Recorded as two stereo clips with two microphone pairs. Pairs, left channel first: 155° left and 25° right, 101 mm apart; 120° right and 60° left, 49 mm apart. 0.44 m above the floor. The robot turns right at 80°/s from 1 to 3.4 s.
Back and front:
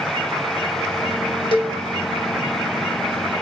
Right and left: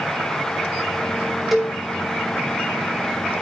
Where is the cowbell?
150° left, 2.5 m; by 1.8 s 170° left, 2.5 m.